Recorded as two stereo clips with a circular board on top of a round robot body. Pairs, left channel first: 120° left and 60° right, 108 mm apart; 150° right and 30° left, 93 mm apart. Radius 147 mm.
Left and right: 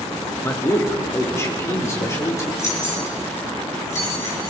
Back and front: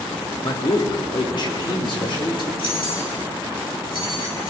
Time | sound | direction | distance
0.4 | a man speaking | straight behind | 1.8 m
2.6 | keys jangling | straight behind | 6.5 m